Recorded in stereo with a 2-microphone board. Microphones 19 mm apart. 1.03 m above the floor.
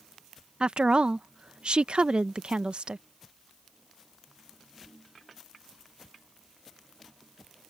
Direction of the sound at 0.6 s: 55° right (ahead or behind).